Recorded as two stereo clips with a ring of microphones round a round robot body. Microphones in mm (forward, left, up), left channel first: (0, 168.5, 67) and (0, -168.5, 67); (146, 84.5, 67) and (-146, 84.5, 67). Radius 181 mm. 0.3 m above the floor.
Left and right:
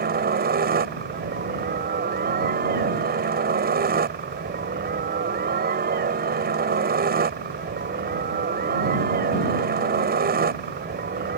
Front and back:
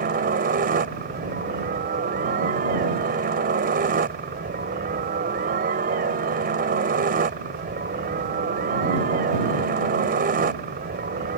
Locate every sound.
0.0 s a helicopter: 135° right